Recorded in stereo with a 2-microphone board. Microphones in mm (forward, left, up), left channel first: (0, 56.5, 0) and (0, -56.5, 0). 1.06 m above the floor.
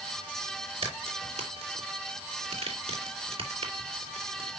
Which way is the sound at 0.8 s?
65° right (ahead or behind).